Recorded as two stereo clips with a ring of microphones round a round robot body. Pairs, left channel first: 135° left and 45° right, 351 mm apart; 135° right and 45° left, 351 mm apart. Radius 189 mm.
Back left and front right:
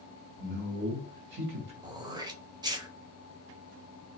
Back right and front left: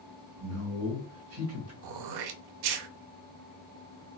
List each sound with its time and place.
0.4 s a man speaking: 5° left, 2 m
1.8 s throat clearing: 35° left, 0.6 m